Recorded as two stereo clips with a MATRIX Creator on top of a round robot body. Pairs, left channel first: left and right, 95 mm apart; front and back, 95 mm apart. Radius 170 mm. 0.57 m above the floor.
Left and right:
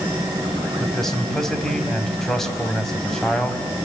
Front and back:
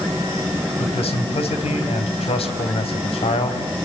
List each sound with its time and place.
0.8 s a man speaking: 5° left, 4 m